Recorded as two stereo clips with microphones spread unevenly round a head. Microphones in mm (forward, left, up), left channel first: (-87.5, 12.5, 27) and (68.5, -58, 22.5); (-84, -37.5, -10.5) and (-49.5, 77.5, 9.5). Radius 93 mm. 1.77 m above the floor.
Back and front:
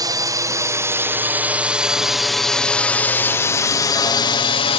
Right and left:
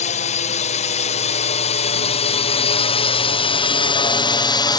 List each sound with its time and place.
0.0 s a drone: 90° right; by 4.8 s 150° right